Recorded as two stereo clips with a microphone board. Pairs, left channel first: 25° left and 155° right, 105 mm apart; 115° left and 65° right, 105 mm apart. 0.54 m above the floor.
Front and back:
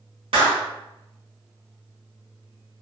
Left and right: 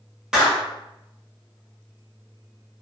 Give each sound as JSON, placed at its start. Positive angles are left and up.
{"t": 0.3, "sound": "a clap", "azimuth_deg": -150, "distance_m": 1.3}